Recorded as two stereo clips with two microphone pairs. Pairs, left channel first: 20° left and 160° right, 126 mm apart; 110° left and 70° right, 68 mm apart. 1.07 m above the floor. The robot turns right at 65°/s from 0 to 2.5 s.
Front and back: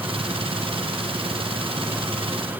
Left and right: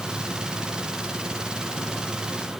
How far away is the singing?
I don't hear singing.